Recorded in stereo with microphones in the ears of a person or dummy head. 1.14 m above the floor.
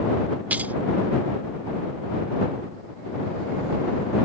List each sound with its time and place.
0.5 s keys jangling: 5° right (ahead or behind)